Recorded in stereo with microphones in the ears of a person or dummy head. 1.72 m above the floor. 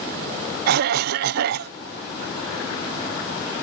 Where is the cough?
50° right (ahead or behind).